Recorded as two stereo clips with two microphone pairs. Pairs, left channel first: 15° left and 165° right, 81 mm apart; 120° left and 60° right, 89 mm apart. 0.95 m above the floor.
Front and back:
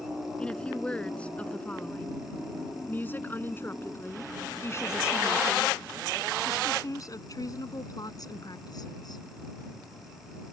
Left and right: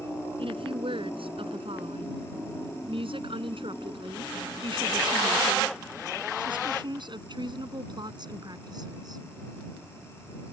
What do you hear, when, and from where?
0.4 s a woman speaking: 60° right; by 9.2 s 15° right